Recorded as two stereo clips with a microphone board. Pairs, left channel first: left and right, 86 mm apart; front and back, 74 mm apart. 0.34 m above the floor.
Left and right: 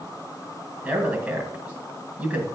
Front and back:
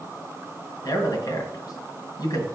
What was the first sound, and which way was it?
A man speaking, 20° right.